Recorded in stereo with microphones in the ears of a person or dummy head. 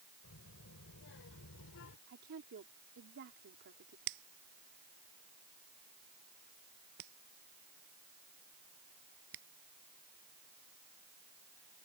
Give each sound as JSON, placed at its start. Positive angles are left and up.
{"t": 0.2, "sound": "a child speaking", "side_deg": 65}
{"t": 2.1, "sound": "a woman speaking", "side_deg": -55}
{"t": 4.1, "sound": "a finger snap", "side_deg": -50}